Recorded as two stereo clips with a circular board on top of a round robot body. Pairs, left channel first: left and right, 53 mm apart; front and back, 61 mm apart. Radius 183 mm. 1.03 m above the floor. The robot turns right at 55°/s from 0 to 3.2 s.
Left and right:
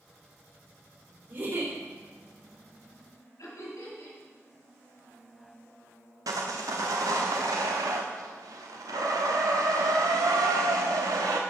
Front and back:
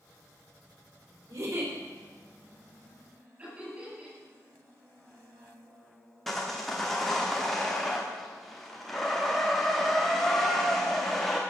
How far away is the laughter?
About 8 m.